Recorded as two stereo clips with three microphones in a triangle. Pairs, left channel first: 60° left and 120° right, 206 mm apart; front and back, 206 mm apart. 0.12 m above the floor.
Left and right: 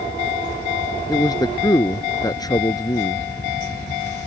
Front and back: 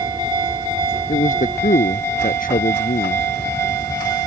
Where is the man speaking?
Straight ahead.